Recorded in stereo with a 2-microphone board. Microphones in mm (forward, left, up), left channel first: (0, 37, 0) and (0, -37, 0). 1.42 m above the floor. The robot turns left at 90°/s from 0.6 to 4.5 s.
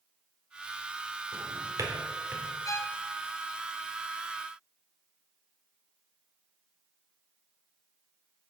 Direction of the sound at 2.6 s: 65° left.